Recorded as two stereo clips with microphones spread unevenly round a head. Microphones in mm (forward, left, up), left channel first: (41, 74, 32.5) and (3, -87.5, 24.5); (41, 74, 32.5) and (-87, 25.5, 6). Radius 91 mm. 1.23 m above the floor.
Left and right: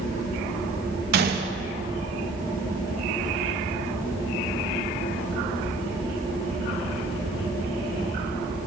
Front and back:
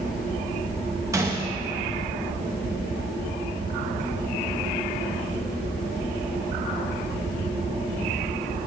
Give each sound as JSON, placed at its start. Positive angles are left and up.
{"t": 1.1, "sound": "a gunshot", "azimuth_deg": -80, "distance_m": 0.7}